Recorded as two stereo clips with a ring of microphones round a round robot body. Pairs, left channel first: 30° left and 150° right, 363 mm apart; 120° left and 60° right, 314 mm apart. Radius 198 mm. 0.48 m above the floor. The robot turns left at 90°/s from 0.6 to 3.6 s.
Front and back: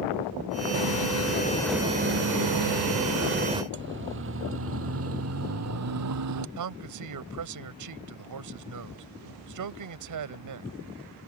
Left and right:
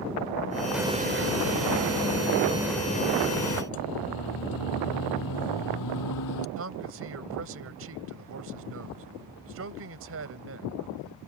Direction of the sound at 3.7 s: 150° left.